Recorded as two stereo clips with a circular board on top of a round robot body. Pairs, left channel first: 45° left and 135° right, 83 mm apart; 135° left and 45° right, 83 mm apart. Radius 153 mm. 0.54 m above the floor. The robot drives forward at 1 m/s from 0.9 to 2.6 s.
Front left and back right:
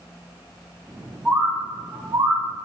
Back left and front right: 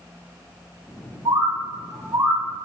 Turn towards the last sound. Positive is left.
turn(degrees=-110)